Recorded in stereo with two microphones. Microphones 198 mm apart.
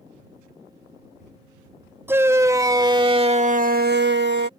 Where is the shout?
10° right (ahead or behind); by 4.5 s 60° right (ahead or behind).